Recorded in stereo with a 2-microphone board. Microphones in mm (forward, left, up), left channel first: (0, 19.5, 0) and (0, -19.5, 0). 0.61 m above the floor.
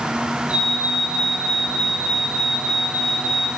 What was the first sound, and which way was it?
A fire alarm, 40° right (ahead or behind).